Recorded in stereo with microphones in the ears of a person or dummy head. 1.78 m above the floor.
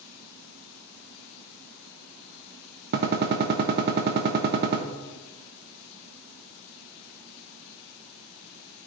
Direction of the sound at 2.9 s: 60° right (ahead or behind).